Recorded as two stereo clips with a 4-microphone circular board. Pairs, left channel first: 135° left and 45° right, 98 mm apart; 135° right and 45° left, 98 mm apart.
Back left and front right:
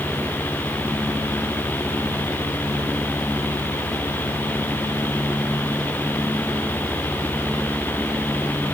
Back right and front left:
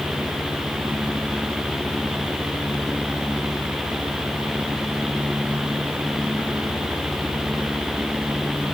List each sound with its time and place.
Only background noise.